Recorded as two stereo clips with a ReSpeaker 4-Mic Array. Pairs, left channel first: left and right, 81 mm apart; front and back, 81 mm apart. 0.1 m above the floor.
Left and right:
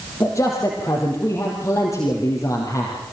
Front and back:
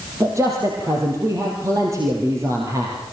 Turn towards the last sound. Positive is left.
turn(degrees=135)